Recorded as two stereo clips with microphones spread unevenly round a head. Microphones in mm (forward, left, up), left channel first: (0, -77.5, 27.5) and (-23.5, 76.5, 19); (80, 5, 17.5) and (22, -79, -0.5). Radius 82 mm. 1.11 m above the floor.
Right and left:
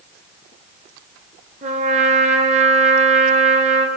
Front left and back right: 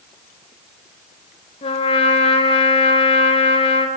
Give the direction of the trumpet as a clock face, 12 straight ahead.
10 o'clock.